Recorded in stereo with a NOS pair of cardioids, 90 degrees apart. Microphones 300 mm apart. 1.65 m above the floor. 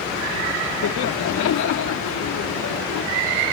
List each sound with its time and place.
0.8 s laughter: 70° left